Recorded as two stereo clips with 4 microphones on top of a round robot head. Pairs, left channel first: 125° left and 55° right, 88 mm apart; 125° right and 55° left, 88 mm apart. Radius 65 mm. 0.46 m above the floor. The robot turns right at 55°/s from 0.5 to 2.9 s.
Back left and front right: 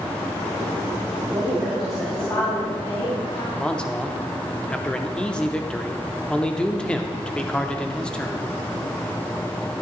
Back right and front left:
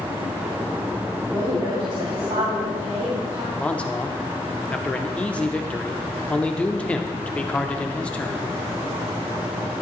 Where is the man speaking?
175° right, 0.7 m.